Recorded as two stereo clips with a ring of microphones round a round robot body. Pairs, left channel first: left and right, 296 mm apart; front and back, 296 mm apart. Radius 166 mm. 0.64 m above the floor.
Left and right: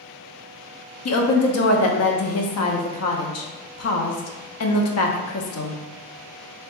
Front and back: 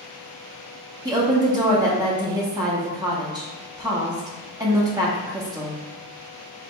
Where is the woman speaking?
105° left, 0.8 m.